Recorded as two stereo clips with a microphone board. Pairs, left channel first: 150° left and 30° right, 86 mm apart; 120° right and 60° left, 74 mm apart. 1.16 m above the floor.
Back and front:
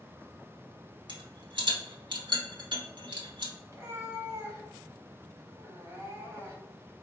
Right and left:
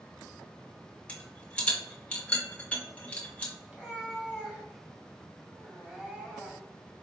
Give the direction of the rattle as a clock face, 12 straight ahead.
2 o'clock.